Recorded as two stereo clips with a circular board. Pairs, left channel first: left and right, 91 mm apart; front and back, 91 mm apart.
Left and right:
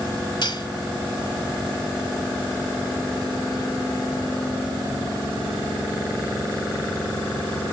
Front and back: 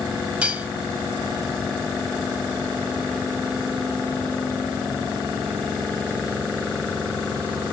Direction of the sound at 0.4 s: 105° left.